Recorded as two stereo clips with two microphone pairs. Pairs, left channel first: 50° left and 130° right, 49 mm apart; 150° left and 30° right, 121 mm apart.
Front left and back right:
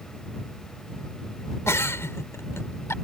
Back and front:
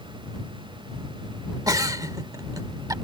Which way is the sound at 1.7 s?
30° left.